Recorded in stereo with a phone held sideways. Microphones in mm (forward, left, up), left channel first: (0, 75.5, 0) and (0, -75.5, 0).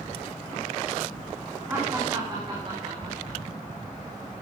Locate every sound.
1.7 s laughter: 15° right (ahead or behind), 2.5 m; by 3.4 s 45° right (ahead or behind), 4.5 m